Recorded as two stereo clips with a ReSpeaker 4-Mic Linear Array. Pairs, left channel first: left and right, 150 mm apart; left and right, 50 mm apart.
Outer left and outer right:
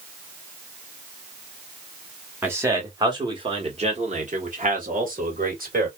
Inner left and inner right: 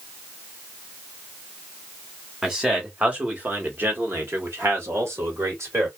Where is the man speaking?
15° right (ahead or behind), 1.3 m; by 5.9 s 75° right (ahead or behind), 1.8 m.